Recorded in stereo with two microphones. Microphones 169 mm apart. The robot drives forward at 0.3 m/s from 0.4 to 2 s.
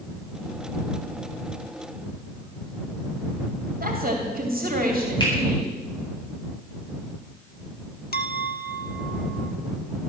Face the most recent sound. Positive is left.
turn(degrees=65)  # may be behind; listen again after turning